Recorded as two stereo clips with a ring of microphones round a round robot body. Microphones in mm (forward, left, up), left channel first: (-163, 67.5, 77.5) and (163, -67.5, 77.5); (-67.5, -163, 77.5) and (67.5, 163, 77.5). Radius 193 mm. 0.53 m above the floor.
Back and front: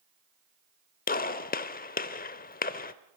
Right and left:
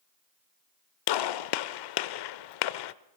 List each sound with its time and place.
1.1 s a gunshot: 135° right, 0.8 m